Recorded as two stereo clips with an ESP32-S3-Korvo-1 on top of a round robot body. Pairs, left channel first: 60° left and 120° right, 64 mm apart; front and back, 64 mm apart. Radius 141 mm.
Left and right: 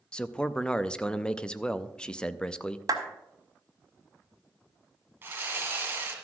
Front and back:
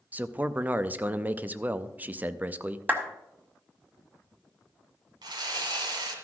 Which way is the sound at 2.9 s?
115° right.